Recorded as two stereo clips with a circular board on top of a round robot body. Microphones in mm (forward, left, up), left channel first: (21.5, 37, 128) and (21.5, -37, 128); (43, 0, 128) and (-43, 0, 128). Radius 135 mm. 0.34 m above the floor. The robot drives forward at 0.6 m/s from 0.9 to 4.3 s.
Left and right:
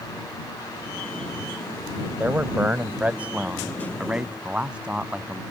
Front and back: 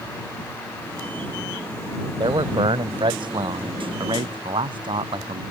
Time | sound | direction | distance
2.2 | a man speaking | 160° right | ?